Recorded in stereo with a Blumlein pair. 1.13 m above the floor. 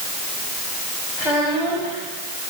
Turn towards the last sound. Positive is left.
turn(degrees=20)